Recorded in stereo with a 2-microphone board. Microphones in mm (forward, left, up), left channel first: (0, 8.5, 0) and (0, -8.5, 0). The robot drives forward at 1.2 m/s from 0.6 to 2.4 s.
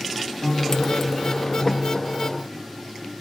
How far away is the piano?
About 1.5 m.